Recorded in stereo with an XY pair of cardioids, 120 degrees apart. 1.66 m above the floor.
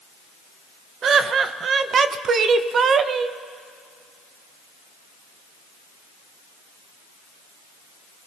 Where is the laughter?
45° right, 0.7 m.